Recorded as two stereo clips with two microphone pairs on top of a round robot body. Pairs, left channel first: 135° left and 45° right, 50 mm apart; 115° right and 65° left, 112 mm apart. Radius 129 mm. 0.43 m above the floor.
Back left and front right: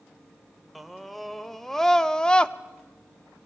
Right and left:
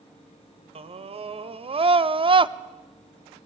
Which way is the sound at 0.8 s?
40° left.